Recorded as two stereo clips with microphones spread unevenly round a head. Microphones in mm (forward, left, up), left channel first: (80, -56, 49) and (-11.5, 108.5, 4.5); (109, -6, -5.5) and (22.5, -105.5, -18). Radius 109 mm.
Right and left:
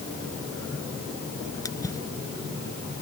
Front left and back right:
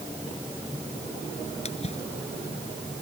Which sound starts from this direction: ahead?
A splash, at 1.6 s.